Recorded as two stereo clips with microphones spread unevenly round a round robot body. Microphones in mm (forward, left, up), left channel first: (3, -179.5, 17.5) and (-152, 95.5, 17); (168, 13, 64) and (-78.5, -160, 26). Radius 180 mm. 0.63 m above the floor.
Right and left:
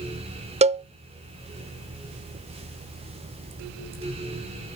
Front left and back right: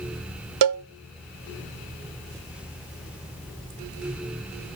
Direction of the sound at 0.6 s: 170° right.